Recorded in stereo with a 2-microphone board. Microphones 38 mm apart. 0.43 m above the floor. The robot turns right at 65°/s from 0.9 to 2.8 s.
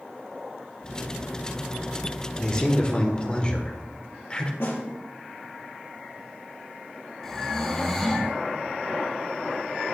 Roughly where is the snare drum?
Left.